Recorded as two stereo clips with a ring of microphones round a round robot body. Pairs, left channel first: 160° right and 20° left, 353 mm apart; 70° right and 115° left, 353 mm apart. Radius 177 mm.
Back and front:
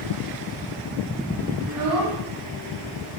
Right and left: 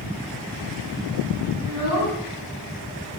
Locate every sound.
1.6 s a child speaking: 25° right, 5 m